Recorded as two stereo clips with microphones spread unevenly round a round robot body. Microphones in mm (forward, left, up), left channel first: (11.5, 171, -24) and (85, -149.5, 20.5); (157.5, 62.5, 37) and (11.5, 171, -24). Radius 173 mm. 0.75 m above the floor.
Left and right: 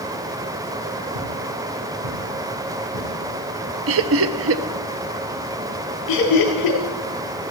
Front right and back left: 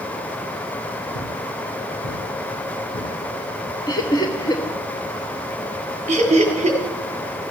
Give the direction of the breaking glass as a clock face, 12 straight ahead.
I don't hear breaking glass.